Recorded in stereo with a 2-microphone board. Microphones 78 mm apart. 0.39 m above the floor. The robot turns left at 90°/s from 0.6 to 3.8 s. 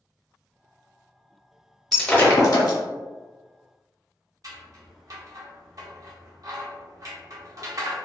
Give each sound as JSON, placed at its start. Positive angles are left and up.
{"t": 1.9, "sound": "breaking glass", "side_deg": 0, "distance_m": 0.7}
{"t": 4.4, "sound": "scissors", "side_deg": -50, "distance_m": 0.7}